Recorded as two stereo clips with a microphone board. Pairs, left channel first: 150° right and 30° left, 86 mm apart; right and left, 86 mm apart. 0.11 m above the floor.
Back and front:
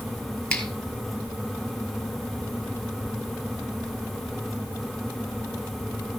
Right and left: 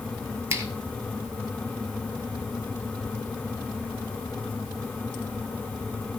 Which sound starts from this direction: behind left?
A finger snap, at 0.5 s.